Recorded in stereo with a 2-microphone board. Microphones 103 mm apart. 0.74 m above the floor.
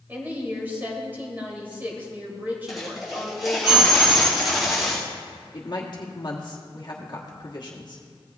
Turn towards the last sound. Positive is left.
turn(degrees=45)  # may be behind; listen again after turning